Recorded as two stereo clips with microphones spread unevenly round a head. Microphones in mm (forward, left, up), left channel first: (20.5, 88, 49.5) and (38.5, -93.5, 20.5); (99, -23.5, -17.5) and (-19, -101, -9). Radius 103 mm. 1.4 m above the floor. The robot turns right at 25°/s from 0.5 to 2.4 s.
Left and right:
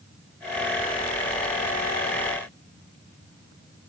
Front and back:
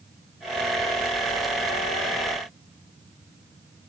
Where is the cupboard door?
I don't hear a cupboard door.